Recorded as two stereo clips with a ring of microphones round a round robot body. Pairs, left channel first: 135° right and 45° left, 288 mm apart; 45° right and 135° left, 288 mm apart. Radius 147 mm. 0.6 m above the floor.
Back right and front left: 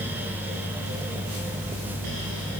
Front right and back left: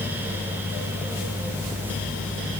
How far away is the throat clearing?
No throat clearing in this recording.